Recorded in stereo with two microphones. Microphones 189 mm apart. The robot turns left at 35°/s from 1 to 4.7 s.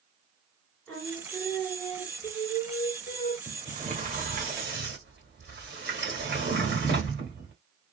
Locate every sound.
0.9 s singing: 170° left, 1.5 m; by 3.4 s 90° left, 1.5 m
3.5 s a sliding door: 25° right (ahead or behind), 1.2 m; by 7.5 s 60° right (ahead or behind), 1.2 m